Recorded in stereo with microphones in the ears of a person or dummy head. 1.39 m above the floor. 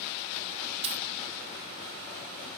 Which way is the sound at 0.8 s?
35° right (ahead or behind).